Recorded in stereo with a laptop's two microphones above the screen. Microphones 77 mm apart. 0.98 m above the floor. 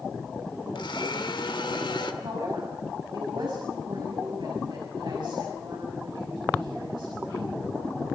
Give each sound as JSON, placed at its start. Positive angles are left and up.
{"t": 0.8, "sound": "a blender", "side_deg": 85, "distance_m": 1.9}
{"t": 2.2, "sound": "a woman speaking", "side_deg": -75, "distance_m": 5.5}